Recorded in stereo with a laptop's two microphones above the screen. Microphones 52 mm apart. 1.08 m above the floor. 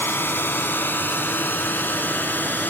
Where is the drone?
50° left (ahead or behind); by 2.7 s 40° left (ahead or behind).